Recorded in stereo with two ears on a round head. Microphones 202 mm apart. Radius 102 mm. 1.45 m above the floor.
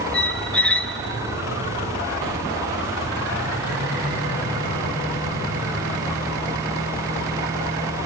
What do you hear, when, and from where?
0.1 s a squeak: 5° left (ahead or behind), 0.9 m